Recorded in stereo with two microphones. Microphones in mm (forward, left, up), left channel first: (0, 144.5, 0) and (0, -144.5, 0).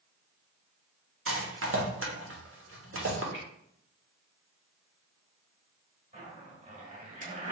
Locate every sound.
1.3 s a rattle: 50° right (ahead or behind), 0.8 m
3.3 s a finger snap: 20° left (ahead or behind), 1.3 m
6.1 s a zipper: 25° right (ahead or behind), 1.3 m